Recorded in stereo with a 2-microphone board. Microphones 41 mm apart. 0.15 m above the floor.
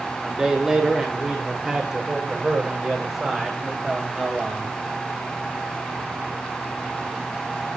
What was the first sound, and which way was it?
A man speaking, 10° right (ahead or behind).